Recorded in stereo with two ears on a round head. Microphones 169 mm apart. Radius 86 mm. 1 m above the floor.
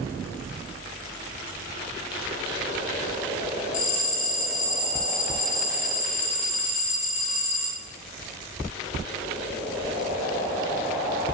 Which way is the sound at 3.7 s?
70° left (ahead or behind).